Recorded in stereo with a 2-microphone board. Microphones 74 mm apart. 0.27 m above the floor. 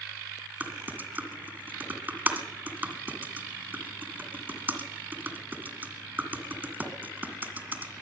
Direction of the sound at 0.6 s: 25° right (ahead or behind).